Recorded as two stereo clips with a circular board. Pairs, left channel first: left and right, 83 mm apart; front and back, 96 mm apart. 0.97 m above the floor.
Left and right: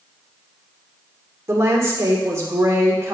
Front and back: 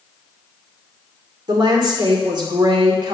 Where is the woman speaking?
140° right, 2.5 m.